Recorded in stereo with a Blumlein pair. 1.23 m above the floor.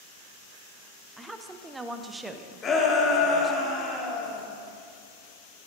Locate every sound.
1.2 s a woman speaking: 10° right, 0.7 m
2.6 s a shout: 20° left, 2.5 m